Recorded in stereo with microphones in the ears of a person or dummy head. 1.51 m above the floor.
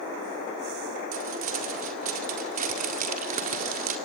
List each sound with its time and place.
1.1 s crumpling: 40° right (ahead or behind), 1.7 m